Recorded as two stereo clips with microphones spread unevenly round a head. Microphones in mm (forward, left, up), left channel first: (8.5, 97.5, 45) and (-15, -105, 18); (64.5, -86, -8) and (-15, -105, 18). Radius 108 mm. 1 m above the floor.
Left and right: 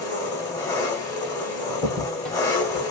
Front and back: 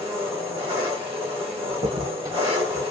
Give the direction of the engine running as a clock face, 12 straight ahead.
7 o'clock.